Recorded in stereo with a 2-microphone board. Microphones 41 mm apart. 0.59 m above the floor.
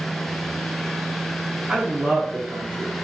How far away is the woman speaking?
About 0.8 m.